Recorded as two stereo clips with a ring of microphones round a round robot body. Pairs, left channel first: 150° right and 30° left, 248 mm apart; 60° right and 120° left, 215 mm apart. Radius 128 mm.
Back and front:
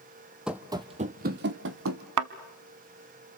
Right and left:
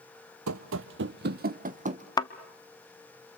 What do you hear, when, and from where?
0.5 s running footsteps: 115° left, 0.8 m; by 2.1 s 65° left, 1.3 m
2.2 s a thud: 10° left, 0.8 m